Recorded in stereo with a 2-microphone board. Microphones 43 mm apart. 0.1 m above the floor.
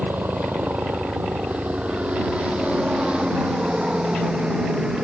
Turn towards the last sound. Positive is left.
turn(degrees=-15)  # may be behind; listen again after turning